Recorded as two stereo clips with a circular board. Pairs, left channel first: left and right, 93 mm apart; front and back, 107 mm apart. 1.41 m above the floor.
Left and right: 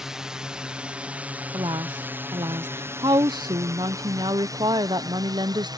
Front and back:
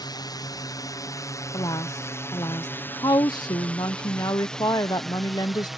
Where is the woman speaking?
55° right.